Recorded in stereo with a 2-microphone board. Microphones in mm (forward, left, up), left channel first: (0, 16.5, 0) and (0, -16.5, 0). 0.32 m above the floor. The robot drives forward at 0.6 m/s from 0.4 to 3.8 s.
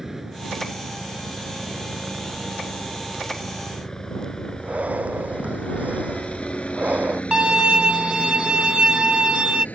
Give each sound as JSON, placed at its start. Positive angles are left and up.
{"t": 0.0, "sound": "a helicopter", "side_deg": -10}
{"t": 4.6, "sound": "breathing", "side_deg": -50}
{"t": 7.3, "sound": "a violin", "side_deg": -35}